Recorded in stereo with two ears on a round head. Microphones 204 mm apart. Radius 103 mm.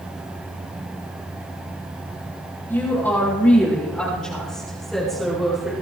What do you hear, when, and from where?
2.7 s a woman speaking: 10° left (ahead or behind), 6 m; by 5.7 s centre (ahead or behind), 7 m